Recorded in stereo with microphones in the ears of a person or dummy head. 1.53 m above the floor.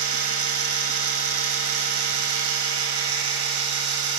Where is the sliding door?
No sliding door in this recording.